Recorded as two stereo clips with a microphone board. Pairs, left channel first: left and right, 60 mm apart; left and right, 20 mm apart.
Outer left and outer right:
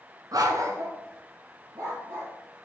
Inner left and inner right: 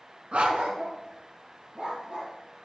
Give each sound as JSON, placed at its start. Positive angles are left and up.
{"t": 0.3, "sound": "a dog barking", "side_deg": -80, "distance_m": 1.2}